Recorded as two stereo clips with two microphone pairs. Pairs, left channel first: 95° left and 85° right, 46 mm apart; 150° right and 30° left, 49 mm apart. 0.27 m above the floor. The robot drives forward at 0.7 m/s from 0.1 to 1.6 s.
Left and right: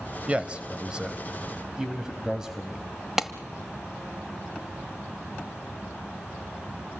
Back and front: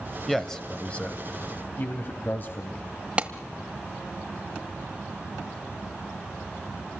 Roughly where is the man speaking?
Right.